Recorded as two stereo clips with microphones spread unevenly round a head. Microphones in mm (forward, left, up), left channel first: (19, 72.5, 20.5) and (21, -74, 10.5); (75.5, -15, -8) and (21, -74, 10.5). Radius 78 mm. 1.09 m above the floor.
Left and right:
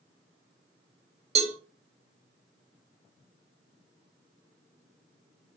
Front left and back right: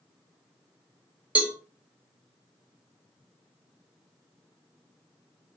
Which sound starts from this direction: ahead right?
A cowbell, at 1.4 s.